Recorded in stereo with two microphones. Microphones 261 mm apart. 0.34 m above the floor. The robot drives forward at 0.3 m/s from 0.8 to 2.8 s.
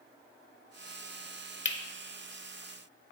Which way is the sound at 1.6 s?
45° left (ahead or behind).